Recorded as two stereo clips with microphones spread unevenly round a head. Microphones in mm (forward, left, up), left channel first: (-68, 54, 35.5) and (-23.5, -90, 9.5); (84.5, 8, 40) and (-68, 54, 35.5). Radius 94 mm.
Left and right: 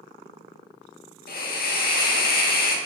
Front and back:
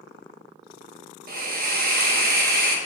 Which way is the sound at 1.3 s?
130° left.